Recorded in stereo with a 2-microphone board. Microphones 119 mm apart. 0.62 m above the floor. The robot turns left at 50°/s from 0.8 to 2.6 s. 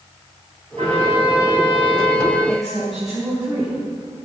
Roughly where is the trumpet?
Right.